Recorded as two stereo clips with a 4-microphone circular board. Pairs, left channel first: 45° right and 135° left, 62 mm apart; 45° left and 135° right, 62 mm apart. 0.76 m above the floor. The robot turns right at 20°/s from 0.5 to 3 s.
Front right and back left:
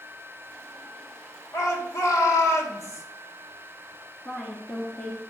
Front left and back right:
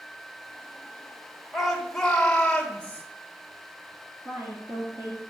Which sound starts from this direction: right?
A woman speaking, at 4.2 s.